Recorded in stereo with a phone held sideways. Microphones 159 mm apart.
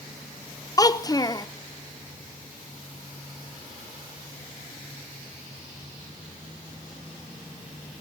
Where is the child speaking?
25° left (ahead or behind), 0.7 m.